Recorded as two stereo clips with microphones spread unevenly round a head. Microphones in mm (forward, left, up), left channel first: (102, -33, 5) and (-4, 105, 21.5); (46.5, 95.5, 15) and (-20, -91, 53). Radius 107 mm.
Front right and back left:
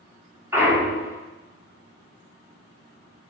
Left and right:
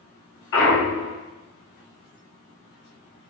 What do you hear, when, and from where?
0.5 s a clunk: 50° left, 2.5 m